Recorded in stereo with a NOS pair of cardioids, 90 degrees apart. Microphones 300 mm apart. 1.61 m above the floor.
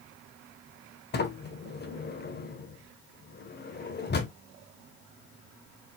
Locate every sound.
1.1 s a sliding door: 35° left, 1.1 m